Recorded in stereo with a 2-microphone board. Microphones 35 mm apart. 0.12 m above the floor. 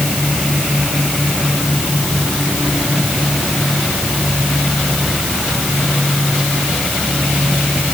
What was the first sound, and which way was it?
Only background noise.